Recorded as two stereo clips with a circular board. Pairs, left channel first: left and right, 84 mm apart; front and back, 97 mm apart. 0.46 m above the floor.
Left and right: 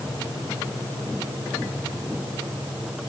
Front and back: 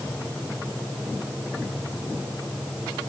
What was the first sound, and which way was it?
Only background noise.